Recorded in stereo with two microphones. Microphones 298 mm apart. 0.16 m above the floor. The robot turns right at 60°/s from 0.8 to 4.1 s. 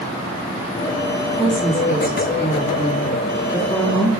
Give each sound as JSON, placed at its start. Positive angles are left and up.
{"t": 1.4, "sound": "a woman speaking", "azimuth_deg": 25, "distance_m": 1.8}